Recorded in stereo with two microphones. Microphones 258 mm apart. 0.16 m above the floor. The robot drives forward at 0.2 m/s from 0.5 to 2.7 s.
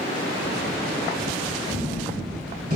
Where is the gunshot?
35° right (ahead or behind), 1.2 m.